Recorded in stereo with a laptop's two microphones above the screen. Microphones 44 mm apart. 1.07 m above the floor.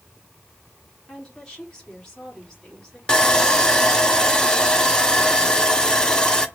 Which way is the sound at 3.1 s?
20° left (ahead or behind).